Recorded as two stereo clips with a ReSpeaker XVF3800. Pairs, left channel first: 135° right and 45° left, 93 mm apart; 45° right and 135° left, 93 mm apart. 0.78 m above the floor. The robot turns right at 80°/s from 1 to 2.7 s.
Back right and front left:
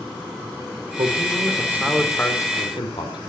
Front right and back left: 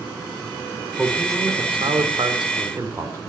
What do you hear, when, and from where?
1.0 s a man speaking: 55° left, 2.5 m; by 3.2 s 170° right, 2.5 m